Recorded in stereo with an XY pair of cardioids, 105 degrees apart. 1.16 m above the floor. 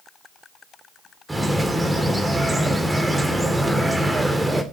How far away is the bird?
About 3 m.